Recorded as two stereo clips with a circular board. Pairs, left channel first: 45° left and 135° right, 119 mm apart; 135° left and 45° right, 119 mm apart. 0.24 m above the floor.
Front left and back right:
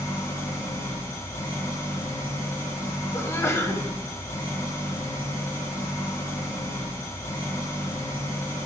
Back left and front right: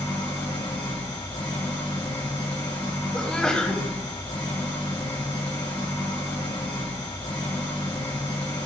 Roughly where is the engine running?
Left.